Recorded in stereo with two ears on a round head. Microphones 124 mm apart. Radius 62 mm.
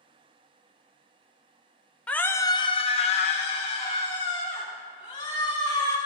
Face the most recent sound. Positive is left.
turn(degrees=40)  # may be behind; listen again after turning